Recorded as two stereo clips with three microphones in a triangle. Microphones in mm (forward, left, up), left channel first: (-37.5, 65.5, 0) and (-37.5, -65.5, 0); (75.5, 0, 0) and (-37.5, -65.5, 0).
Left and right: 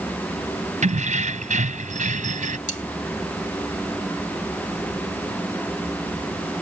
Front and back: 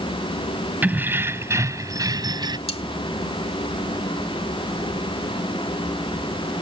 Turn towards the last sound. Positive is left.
turn(degrees=70)